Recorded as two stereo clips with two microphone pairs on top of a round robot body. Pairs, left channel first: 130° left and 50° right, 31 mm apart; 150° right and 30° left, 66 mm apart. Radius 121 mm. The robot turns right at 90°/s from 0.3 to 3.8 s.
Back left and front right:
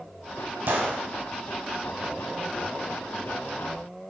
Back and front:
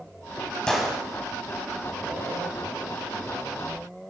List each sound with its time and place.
0.7 s a gunshot: 75° right, 2.5 m; by 1.0 s 45° right, 2.5 m